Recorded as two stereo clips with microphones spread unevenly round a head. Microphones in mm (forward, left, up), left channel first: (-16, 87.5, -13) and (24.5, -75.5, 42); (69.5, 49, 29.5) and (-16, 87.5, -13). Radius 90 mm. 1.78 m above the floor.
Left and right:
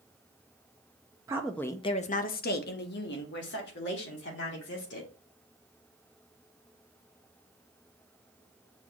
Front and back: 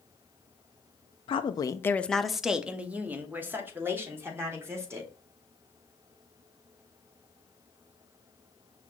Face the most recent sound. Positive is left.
turn(degrees=95)